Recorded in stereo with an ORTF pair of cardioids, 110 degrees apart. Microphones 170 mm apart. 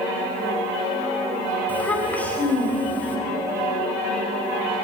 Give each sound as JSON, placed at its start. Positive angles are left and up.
{"t": 1.7, "sound": "a child speaking", "azimuth_deg": 10, "distance_m": 4.5}